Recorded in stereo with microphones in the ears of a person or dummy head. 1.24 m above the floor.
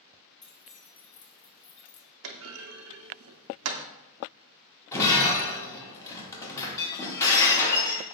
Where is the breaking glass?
15° left (ahead or behind), 1.0 m.